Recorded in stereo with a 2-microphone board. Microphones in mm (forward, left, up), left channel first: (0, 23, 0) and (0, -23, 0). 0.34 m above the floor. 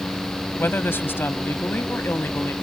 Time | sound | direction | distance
0.6 | a woman speaking | 50° left (ahead or behind) | ?